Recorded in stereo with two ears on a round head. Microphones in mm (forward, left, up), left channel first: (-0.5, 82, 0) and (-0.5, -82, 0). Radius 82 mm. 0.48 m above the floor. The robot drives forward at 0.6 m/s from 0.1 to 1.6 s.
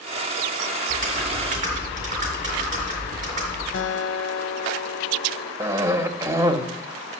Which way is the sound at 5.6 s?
15° right (ahead or behind).